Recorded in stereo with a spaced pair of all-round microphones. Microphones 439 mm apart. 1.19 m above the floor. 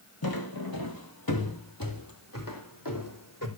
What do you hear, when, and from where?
0.2 s footsteps: 55° left (ahead or behind), 1.8 m; by 3.5 s 45° left (ahead or behind), 3 m